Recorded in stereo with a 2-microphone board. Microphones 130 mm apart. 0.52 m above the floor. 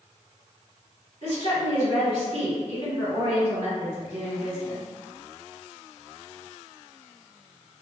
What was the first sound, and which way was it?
A woman speaking, 55° right (ahead or behind).